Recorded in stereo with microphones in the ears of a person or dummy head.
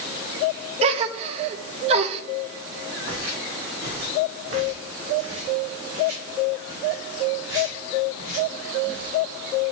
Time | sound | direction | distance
0.8 | a gasp | 40° right (ahead or behind) | 0.8 m
3.0 | footsteps | 60° right (ahead or behind) | 4 m